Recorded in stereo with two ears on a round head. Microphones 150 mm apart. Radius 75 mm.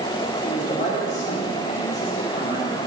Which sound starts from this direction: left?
A man speaking, at 0.4 s.